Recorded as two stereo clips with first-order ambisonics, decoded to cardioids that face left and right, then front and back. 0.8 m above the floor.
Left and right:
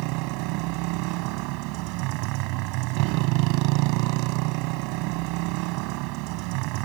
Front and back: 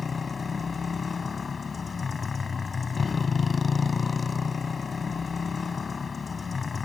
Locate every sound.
0.0 s a motorcycle: 75° right